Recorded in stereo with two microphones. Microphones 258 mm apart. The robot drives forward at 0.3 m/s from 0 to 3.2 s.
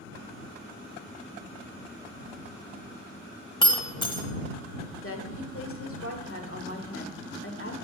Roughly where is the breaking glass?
Centre.